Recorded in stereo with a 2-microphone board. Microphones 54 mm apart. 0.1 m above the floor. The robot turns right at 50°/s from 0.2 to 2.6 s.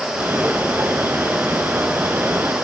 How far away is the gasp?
No gasp in this recording.